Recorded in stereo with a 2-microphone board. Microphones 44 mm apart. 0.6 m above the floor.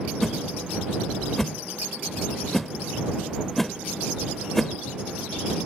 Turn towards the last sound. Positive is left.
turn(degrees=5)  # may be behind; listen again after turning